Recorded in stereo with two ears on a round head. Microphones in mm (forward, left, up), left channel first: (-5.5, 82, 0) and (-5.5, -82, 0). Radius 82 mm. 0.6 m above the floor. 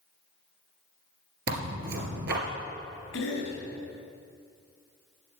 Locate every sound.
1.5 s tearing paper: 60° right (ahead or behind), 2.5 m
3.1 s a cough: 80° left, 4 m